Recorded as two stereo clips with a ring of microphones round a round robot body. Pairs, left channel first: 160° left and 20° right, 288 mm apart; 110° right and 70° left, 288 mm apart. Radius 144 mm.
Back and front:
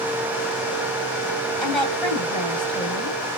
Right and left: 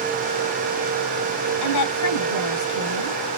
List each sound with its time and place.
1.6 s a woman speaking: 115° right, 2.0 m